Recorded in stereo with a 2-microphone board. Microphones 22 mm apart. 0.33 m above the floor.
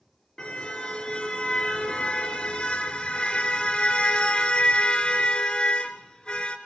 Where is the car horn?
40° left (ahead or behind), 3 m.